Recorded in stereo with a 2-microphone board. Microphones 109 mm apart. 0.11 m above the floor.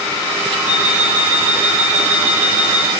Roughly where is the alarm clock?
Centre.